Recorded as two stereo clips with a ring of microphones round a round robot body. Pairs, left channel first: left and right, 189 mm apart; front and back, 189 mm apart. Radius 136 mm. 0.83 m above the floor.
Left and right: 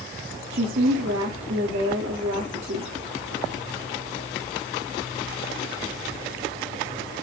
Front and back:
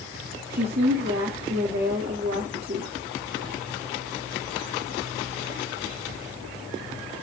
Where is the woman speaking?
130° right, 1.6 m.